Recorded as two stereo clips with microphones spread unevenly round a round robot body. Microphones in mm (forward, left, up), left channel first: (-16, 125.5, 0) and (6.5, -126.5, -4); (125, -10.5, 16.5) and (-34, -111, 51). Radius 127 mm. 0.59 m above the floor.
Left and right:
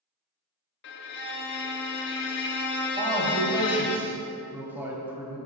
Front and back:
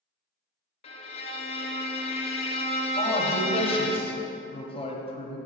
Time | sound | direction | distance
0.8 | a violin | 65° left | 0.7 m
3.0 | a man speaking | 5° right | 1.3 m